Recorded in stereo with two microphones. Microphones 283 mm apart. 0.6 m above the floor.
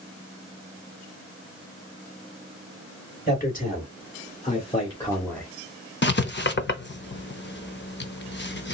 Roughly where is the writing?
Left.